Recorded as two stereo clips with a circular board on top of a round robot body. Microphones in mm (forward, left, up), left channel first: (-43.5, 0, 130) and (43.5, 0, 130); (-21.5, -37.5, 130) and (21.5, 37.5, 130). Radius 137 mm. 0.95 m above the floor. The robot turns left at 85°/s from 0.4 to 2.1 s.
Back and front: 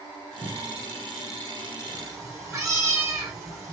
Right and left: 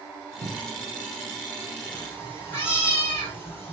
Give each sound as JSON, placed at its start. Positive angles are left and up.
{"t": 0.4, "sound": "a cupboard door", "azimuth_deg": 40, "distance_m": 1.4}
{"t": 1.9, "sound": "a cat meowing", "azimuth_deg": -35, "distance_m": 2.0}